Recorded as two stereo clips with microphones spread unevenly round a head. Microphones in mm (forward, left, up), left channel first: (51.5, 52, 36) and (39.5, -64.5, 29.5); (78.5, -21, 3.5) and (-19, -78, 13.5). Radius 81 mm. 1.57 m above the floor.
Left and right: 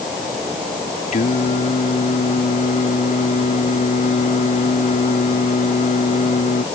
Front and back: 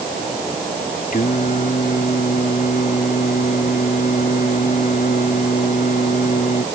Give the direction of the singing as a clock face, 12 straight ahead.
10 o'clock.